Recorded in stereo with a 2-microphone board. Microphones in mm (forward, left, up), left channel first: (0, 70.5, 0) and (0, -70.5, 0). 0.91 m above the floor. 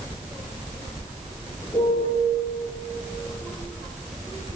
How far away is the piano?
About 6.5 m.